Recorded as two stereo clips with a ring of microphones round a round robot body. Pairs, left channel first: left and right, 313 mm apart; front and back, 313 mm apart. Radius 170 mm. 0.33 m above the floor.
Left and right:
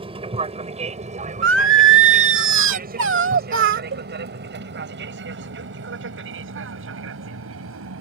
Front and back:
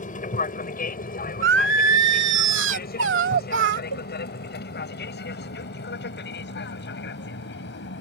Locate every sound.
0.0 s an aircraft: 35° right; by 8.0 s 50° right
1.4 s singing: 135° right
3.9 s a cowbell: 140° right